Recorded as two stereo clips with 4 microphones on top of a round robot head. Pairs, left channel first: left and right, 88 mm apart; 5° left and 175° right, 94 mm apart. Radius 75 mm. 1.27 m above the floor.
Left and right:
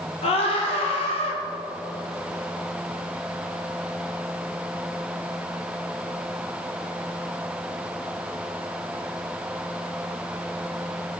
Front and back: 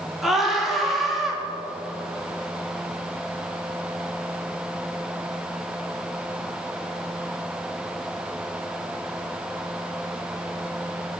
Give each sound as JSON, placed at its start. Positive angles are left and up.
{"t": 0.2, "sound": "a scream", "azimuth_deg": 100, "distance_m": 3.0}